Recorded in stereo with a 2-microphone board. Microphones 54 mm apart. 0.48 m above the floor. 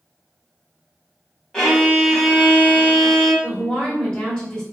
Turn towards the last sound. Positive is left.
turn(degrees=15)  # may be behind; listen again after turning